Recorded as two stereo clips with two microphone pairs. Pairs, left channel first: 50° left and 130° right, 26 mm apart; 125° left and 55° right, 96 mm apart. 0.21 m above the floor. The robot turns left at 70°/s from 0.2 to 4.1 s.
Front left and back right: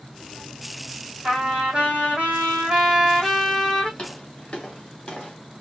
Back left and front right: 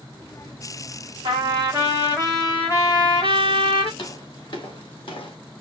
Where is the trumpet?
65° right, 2 m; by 3.9 s 105° left, 2 m.